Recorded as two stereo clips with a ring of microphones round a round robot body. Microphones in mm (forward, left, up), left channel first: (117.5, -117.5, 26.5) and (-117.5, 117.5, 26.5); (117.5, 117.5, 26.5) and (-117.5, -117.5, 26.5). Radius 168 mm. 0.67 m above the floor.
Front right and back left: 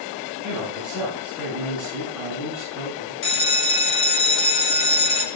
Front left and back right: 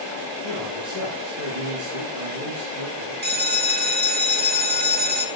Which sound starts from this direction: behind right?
A man speaking, at 0.4 s.